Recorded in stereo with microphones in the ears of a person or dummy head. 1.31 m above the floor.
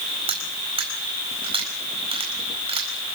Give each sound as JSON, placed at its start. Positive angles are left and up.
{"t": 0.3, "sound": "cutlery clinking", "side_deg": -30, "distance_m": 4.5}